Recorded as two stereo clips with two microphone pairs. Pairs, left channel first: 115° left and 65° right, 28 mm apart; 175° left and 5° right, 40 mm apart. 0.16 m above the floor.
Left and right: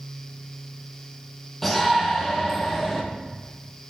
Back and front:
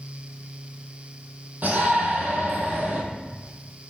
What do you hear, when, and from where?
1.6 s a shout: 30° left, 5 m